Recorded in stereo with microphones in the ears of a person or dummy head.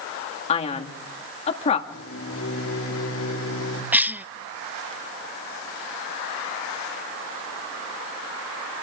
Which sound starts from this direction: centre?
A cough, at 3.9 s.